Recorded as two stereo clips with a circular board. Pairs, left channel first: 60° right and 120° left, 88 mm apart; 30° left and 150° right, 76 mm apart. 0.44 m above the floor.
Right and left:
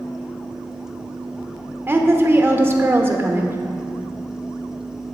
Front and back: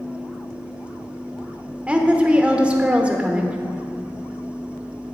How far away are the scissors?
I don't hear scissors.